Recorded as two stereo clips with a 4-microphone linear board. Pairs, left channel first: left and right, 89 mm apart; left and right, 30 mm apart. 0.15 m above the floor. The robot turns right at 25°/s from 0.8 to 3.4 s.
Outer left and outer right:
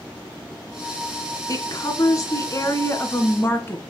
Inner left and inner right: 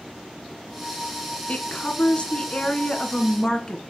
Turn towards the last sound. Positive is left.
turn(degrees=145)